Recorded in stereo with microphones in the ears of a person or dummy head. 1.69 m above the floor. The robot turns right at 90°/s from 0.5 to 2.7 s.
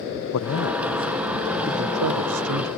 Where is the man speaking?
105° left; by 2.7 s 55° right.